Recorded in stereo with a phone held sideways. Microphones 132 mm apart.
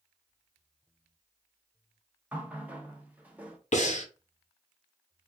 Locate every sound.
2.3 s a running tap: 10° right (ahead or behind), 0.5 m
3.7 s breathing: 65° left (ahead or behind), 0.6 m